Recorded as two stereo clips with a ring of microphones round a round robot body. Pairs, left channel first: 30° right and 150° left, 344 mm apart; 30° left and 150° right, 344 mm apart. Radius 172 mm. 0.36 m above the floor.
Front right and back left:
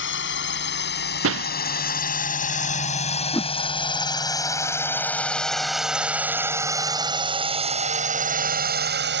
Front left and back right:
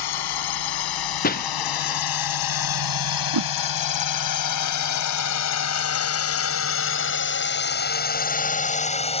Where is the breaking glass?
95° left.